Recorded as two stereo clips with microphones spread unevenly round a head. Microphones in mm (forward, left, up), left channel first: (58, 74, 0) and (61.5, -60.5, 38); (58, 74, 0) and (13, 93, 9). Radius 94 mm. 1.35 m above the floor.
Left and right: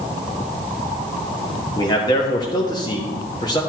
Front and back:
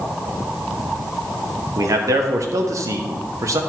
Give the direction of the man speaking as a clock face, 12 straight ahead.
7 o'clock.